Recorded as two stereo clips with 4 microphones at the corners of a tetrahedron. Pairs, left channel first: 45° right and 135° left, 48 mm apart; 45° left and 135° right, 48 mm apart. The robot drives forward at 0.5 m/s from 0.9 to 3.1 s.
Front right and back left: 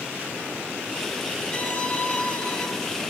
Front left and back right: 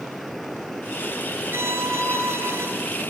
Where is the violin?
100° right, 4 m; by 2.7 s 105° right, 4 m.